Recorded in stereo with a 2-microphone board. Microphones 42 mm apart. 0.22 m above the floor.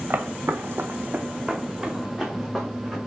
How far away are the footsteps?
About 0.9 m.